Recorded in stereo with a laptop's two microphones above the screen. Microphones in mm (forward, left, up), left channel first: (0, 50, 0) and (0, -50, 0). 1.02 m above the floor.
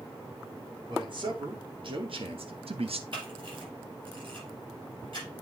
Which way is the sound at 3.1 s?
55° right (ahead or behind).